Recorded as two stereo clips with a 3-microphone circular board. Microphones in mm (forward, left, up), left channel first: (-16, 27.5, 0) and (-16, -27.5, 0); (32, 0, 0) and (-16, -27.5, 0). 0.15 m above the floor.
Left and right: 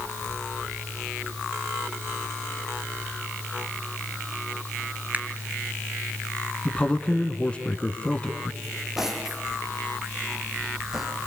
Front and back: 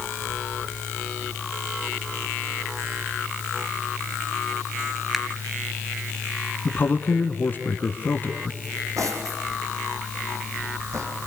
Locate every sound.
5.1 s a finger snap: 65° right, 1.2 m
6.7 s a man speaking: 40° left, 1.8 m
8.6 s cutlery clinking: 175° right, 4 m